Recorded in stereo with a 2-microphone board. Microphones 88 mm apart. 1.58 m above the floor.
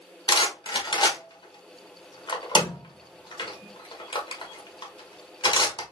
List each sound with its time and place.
0.3 s a rattle: 55° left (ahead or behind), 1.2 m